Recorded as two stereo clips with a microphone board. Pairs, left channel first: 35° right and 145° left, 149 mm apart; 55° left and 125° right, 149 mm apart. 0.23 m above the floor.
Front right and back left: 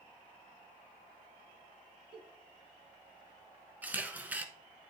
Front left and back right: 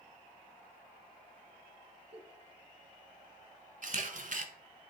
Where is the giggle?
165° right, 1.1 m.